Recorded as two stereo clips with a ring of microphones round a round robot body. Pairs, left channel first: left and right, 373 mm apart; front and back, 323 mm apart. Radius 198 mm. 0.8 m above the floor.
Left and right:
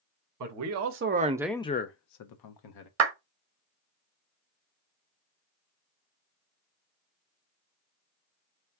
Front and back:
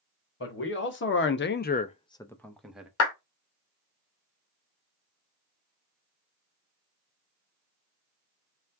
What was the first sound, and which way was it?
A man speaking, 55° right.